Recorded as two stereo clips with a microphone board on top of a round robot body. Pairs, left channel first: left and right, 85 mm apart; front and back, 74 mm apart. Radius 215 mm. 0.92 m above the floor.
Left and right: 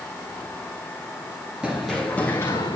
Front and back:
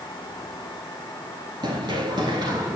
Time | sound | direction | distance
1.6 | running footsteps | 170° right | 1.1 m